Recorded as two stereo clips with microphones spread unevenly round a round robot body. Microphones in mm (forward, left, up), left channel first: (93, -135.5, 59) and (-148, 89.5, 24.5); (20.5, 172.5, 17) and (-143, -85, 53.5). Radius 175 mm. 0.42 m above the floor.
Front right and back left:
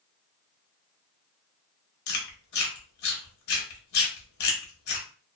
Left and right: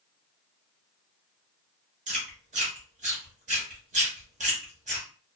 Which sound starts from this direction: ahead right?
Chewing, at 2.1 s.